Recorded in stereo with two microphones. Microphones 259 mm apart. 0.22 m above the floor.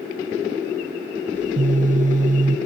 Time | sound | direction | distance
1.3 | a phone buzzing | 30° right (ahead or behind) | 0.6 m